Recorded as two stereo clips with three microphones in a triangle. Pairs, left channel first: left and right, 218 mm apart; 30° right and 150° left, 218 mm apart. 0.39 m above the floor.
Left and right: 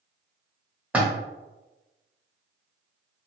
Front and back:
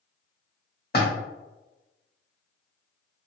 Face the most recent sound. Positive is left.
turn(degrees=-5)